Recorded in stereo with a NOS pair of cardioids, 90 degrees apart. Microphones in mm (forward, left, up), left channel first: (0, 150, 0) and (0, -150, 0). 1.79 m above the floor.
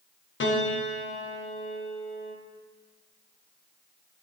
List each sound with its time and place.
0.4 s a piano: 40° left, 1.5 m